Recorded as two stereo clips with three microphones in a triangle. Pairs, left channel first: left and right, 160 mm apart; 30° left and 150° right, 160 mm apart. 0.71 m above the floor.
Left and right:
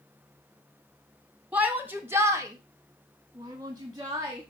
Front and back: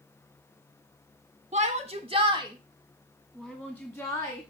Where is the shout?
170° right, 1.5 m; by 4.4 s 30° right, 1.6 m.